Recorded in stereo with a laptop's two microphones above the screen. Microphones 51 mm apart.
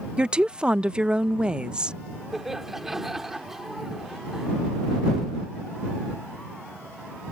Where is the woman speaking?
20° right (ahead or behind).